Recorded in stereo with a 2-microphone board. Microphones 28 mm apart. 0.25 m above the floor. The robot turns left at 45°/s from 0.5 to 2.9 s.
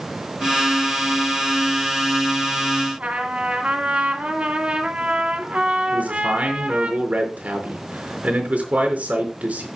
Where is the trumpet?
50° right (ahead or behind), 2 m.